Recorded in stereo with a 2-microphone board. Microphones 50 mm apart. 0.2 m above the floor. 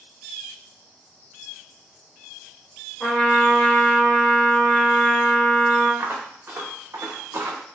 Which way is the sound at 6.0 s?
45° right (ahead or behind).